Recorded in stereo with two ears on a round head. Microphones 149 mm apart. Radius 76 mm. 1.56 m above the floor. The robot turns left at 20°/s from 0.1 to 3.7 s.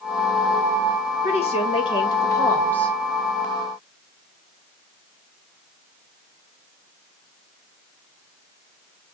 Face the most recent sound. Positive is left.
turn(degrees=-10)